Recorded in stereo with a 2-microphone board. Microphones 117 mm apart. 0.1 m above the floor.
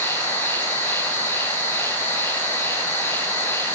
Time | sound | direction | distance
0.0 | an insect | 20° left (ahead or behind) | 3 m